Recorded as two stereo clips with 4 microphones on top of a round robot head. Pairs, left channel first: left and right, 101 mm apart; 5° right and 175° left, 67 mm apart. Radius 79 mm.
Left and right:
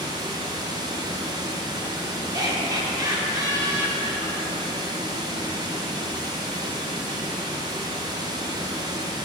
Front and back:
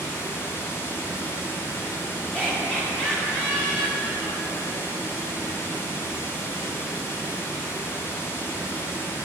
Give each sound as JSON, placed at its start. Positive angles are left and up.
{"t": 0.0, "sound": "running water", "azimuth_deg": -50, "distance_m": 0.8}
{"t": 2.3, "sound": "laughter", "azimuth_deg": -65, "distance_m": 1.5}